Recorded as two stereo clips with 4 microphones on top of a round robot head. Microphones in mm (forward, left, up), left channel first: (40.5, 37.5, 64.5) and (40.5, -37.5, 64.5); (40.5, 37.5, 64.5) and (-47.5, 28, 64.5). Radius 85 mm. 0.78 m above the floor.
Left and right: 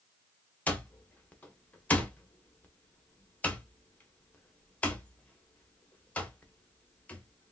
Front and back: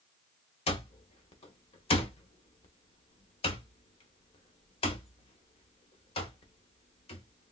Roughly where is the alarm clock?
Ahead.